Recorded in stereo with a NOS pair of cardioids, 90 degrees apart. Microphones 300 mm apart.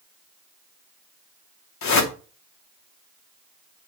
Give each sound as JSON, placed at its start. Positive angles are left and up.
{"t": 1.8, "sound": "a whoosh", "azimuth_deg": 60, "distance_m": 2.5}